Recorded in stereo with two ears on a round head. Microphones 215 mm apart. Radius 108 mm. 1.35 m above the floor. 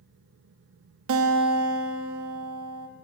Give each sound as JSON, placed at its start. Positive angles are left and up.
{"t": 1.1, "sound": "a guitar", "side_deg": -65, "distance_m": 2.0}